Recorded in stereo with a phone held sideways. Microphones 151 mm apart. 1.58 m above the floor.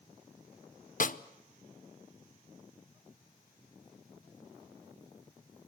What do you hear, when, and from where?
1.0 s a snare drum: 60° left (ahead or behind), 0.7 m